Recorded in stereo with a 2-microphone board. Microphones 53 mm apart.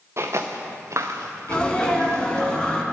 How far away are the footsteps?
About 1.2 m.